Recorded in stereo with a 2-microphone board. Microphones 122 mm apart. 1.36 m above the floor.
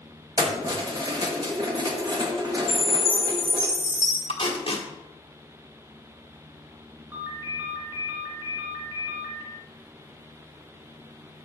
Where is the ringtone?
25° right (ahead or behind), 2.5 m.